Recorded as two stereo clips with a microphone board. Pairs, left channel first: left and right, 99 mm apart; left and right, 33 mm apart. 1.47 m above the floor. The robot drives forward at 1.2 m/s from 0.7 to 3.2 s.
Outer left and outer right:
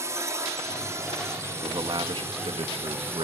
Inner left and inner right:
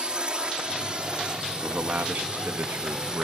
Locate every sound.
0.0 s a drone: 30° right (ahead or behind); by 3.2 s 25° right (ahead or behind)
1.6 s a man speaking: 50° right (ahead or behind); by 3.2 s 85° right